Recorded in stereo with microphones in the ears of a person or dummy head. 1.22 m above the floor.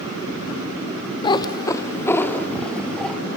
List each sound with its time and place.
1.2 s a cat meowing: 25° left (ahead or behind), 1.1 m; by 3.2 s centre (ahead or behind), 2 m